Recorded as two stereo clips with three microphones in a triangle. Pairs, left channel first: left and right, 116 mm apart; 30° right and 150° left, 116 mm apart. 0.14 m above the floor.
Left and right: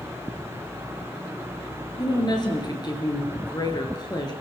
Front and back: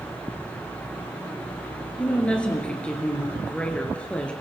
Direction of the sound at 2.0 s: 50° left.